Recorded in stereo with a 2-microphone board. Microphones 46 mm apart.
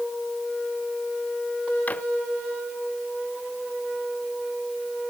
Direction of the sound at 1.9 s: 35° left (ahead or behind).